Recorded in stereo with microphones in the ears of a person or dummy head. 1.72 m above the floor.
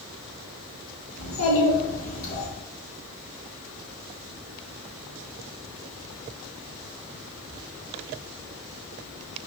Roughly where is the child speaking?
Left.